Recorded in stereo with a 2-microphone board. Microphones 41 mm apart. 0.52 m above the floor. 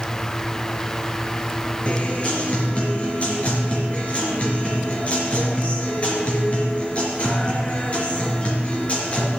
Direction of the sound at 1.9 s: 35° left (ahead or behind).